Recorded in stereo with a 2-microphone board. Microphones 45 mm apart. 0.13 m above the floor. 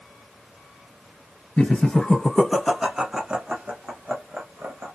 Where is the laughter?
25° left (ahead or behind), 1.4 m; by 4.9 s 55° right (ahead or behind), 1.8 m.